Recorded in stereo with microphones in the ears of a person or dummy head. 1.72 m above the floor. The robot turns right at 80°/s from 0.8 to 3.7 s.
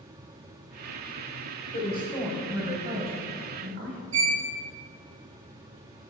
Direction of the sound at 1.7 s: 130° left.